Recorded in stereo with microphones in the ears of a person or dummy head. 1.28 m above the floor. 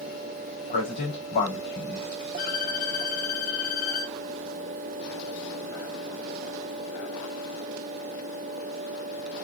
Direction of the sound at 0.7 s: 65° left (ahead or behind).